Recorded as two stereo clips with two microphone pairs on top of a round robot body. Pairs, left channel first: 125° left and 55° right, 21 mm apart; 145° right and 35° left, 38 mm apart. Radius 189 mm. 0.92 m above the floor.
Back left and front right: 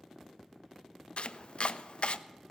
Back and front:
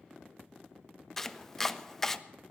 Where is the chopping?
125° left, 0.7 m.